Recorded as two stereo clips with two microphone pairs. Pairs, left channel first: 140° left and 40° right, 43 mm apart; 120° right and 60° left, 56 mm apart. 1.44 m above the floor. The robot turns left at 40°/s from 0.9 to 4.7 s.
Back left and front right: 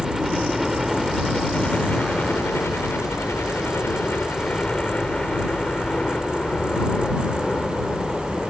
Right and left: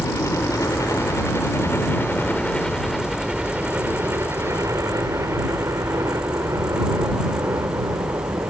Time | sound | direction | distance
0.0 | a helicopter | 130° right | ?